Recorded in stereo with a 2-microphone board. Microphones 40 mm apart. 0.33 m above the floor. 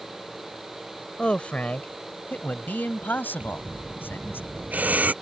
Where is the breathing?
40° right (ahead or behind).